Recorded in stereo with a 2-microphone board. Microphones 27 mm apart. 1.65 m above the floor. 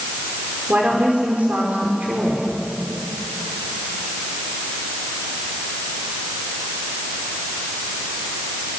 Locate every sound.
0.7 s a woman speaking: 80° right, 5.5 m